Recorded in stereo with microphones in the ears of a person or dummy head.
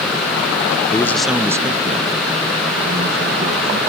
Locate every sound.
0.9 s a man speaking: 10° left (ahead or behind), 0.7 m; by 3.8 s 50° right (ahead or behind), 1.7 m